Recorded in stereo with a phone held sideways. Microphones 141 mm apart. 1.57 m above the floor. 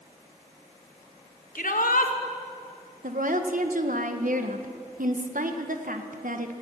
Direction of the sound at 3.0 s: 75° right (ahead or behind).